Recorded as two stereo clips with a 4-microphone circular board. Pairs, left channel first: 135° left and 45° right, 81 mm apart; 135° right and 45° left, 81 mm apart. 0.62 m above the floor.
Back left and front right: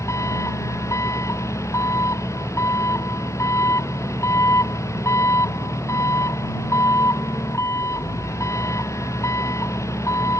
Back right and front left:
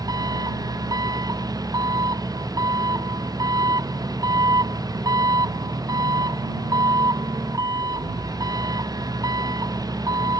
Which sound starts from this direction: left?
An engine running, at 0.0 s.